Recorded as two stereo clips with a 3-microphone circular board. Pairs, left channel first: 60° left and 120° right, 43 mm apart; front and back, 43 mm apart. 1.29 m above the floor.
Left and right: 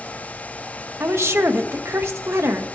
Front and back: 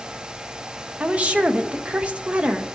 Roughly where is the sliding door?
I don't hear a sliding door.